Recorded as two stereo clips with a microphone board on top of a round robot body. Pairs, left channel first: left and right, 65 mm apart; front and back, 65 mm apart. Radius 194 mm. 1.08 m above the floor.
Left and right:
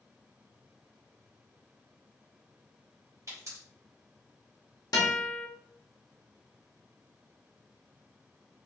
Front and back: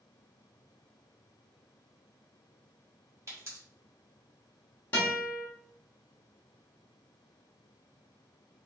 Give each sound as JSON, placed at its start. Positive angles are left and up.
{"t": 3.3, "sound": "a pop", "azimuth_deg": -130, "distance_m": 2.0}
{"t": 4.9, "sound": "a guitar", "azimuth_deg": 65, "distance_m": 0.9}